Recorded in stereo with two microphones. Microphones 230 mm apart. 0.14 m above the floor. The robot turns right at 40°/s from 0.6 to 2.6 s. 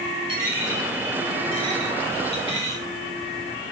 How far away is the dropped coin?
About 5 m.